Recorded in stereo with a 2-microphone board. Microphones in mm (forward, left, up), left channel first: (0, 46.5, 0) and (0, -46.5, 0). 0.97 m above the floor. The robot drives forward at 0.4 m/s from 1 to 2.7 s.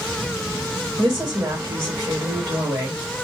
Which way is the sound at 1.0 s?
40° right (ahead or behind).